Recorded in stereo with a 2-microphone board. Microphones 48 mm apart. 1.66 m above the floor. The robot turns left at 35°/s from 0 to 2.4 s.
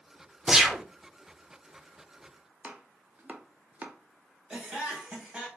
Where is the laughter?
10° right (ahead or behind), 1.3 m.